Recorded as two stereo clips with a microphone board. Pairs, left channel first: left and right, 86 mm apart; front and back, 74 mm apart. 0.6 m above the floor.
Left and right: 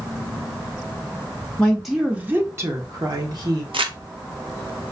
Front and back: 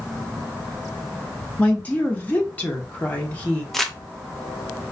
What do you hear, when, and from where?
1.6 s a woman speaking: 35° left, 0.7 m; by 3.6 s 70° right, 1.4 m
3.7 s crumpling: 90° right, 0.6 m